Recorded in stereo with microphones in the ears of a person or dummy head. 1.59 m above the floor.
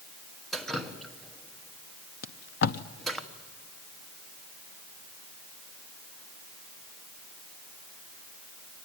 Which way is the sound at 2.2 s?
55° left (ahead or behind).